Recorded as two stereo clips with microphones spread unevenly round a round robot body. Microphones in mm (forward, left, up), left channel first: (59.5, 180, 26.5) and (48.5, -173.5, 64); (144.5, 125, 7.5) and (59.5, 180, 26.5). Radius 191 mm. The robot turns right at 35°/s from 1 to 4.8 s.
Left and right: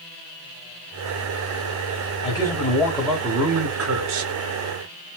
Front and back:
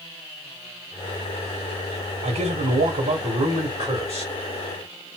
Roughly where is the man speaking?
Behind.